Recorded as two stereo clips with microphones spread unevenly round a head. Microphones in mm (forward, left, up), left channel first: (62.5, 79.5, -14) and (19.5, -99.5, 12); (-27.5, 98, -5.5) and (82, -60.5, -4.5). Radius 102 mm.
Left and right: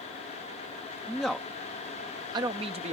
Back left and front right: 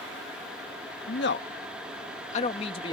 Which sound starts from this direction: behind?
A man speaking, at 1.1 s.